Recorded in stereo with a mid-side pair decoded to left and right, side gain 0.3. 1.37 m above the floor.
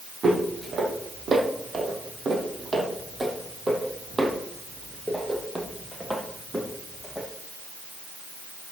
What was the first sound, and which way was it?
Footsteps, 65° right.